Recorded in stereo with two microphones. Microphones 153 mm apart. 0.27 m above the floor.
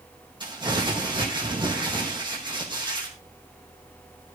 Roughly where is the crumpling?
Right.